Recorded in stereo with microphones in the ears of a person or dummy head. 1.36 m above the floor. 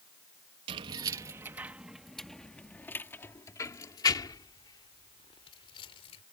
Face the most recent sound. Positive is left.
turn(degrees=30)  # may be behind; listen again after turning